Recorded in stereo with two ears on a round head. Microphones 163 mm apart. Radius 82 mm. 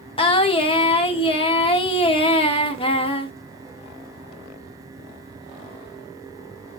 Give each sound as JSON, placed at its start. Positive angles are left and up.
{"t": 0.2, "sound": "singing", "side_deg": 30, "distance_m": 1.2}